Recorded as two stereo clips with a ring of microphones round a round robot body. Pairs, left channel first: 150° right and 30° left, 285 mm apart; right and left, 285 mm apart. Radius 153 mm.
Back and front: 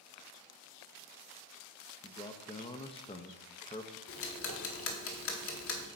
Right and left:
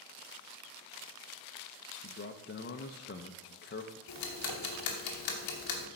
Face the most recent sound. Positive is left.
turn(degrees=-105)